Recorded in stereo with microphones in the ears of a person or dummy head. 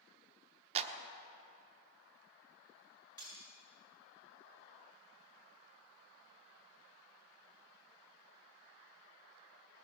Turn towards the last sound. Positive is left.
turn(degrees=25)  # may be behind; listen again after turning